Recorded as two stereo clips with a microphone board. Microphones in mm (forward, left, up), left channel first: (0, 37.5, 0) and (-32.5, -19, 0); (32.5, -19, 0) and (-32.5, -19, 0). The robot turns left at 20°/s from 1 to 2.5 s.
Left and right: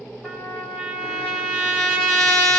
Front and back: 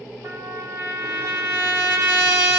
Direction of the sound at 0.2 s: 145° left.